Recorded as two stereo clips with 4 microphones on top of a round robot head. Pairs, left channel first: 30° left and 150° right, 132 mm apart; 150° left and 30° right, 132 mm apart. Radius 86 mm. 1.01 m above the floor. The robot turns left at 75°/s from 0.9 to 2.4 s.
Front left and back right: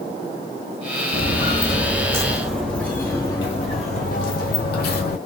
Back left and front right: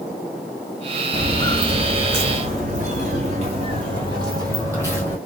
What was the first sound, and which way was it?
Footsteps, 10° left.